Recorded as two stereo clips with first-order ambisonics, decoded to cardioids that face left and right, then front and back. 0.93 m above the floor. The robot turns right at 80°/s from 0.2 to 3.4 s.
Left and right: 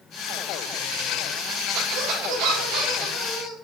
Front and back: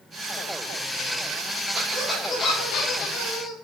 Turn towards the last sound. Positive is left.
turn(degrees=5)